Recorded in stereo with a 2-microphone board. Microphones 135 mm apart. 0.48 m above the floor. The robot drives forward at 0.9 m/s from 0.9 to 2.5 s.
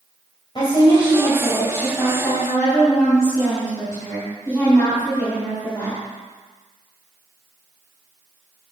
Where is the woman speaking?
40° left (ahead or behind), 2.5 m; by 6.0 s 25° left (ahead or behind), 4 m.